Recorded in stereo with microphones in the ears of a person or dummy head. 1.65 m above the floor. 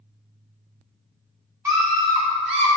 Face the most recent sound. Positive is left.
turn(degrees=-35)  # may be behind; listen again after turning